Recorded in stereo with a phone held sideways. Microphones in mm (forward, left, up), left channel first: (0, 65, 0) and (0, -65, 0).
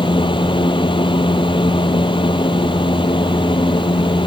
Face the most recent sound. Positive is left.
turn(degrees=40)  # may be behind; listen again after turning